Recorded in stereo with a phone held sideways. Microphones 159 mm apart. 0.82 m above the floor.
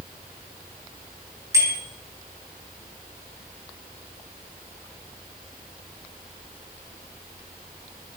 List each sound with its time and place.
1.5 s a bicycle bell: 20° right (ahead or behind), 8 m